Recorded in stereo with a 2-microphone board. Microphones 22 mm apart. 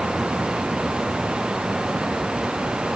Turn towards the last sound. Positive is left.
No sound to turn to.